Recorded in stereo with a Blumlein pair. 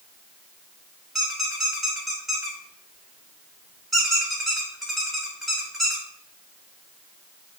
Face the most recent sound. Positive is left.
turn(degrees=-10)